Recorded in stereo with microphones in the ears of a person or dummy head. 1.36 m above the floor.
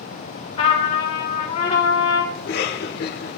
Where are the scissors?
No scissors in this recording.